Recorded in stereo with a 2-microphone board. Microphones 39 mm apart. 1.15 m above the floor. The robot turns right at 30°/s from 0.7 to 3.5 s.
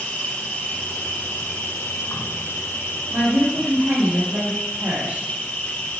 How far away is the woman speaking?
About 2.5 m.